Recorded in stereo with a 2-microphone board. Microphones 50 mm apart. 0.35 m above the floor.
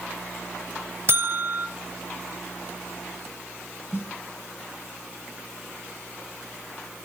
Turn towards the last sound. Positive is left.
turn(degrees=55)  # may be behind; listen again after turning